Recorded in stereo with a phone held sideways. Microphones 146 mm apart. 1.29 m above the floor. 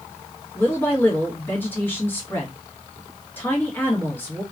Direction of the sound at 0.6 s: 15° left (ahead or behind).